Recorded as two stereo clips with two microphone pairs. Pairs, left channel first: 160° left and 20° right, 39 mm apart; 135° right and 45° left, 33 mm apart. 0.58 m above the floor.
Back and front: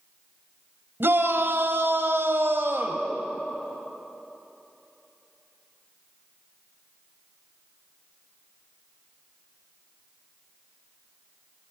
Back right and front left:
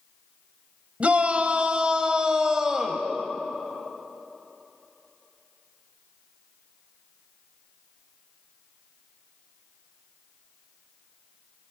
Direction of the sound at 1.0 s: 5° right.